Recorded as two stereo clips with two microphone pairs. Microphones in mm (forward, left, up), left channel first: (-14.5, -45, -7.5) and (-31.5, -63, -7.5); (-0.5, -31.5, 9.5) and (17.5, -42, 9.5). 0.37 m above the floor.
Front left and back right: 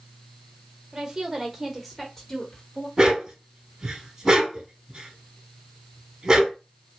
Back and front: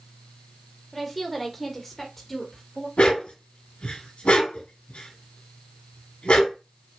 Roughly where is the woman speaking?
Behind right.